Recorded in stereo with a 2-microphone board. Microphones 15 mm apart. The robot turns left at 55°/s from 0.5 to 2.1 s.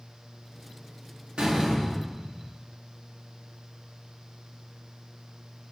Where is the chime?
No chime in this recording.